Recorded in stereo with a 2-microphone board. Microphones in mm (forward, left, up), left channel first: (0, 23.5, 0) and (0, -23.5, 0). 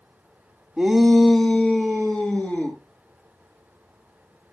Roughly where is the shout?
Centre.